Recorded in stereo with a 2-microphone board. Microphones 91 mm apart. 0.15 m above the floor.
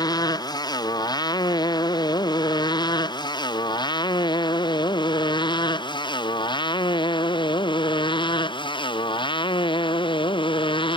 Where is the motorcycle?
45° left (ahead or behind); by 11.0 s 60° left (ahead or behind).